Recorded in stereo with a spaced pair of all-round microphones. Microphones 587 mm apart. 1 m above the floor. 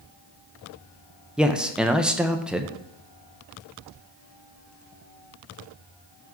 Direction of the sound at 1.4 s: Centre (ahead or behind).